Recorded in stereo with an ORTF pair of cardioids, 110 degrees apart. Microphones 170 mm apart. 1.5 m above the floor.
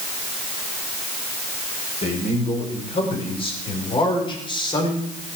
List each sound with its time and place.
2.0 s a man speaking: 35° left, 7 m; by 5.1 s 25° left, 5.5 m